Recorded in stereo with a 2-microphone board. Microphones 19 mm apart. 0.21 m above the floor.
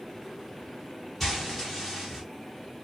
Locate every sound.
1.2 s frying: 5° left (ahead or behind), 5 m